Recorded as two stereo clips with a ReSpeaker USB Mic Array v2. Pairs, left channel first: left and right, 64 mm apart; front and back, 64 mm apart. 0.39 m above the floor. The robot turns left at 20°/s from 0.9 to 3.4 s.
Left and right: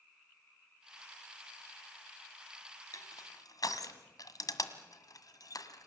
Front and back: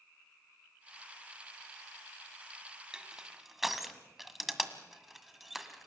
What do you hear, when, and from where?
2.9 s crushing: 105° left, 1.6 m; by 5.9 s 95° left, 1.6 m